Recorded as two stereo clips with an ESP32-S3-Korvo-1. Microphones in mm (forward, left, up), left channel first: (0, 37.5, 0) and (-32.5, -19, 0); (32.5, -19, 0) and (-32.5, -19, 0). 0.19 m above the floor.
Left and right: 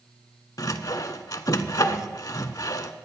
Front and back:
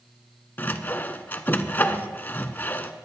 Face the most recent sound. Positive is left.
turn(degrees=55)